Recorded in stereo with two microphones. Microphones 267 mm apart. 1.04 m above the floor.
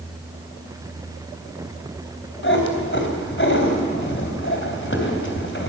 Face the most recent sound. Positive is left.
turn(degrees=50)  # may be behind; listen again after turning